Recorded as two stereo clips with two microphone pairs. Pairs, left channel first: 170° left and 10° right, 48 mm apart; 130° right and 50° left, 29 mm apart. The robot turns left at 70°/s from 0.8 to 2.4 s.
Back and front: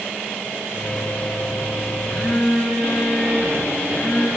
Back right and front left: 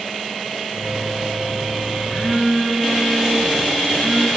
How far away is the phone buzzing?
About 9 m.